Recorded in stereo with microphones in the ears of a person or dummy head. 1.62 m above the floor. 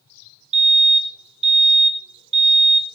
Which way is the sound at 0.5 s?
35° right (ahead or behind).